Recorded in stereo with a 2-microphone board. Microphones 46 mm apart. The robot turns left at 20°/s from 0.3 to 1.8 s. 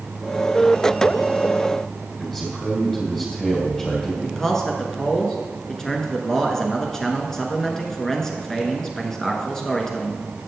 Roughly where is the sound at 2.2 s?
Centre.